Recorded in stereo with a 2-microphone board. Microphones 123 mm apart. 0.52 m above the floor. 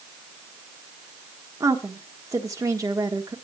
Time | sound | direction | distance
1.6 | a woman speaking | 30° right (ahead or behind) | 1.3 m